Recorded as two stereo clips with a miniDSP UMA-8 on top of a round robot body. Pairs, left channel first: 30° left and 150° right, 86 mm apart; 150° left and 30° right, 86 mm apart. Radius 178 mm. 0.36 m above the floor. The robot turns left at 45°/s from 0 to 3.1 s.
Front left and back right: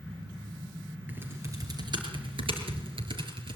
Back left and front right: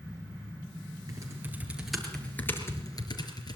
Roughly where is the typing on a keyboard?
Right.